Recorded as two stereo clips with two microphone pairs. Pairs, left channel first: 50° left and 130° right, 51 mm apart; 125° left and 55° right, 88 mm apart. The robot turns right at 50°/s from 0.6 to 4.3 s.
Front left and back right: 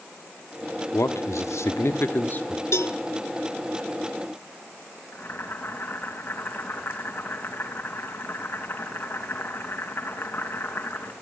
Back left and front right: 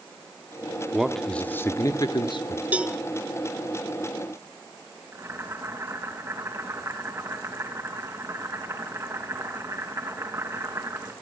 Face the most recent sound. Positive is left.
turn(degrees=0)